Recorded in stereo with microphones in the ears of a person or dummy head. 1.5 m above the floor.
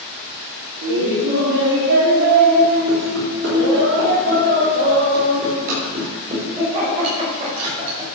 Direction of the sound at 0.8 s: 65° right (ahead or behind).